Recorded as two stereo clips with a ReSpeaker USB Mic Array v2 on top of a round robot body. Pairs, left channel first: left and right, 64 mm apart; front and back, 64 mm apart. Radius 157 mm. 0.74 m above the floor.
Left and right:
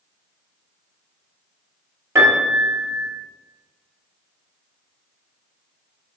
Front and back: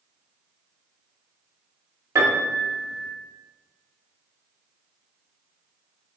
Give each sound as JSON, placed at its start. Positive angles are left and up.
{"t": 2.1, "sound": "a piano", "azimuth_deg": -140, "distance_m": 0.6}